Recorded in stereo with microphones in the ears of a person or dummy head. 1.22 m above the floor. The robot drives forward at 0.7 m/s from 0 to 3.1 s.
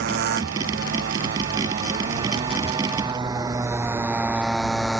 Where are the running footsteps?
No running footsteps in this recording.